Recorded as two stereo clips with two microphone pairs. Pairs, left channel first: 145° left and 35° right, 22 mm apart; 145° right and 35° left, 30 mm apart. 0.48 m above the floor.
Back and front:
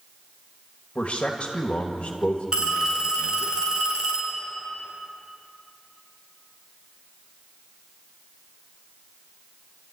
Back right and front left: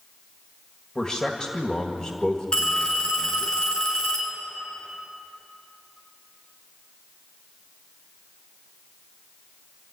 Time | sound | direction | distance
0.9 | a man speaking | 155° left | 2.0 m
2.5 | a phone ringing | 85° right | 5 m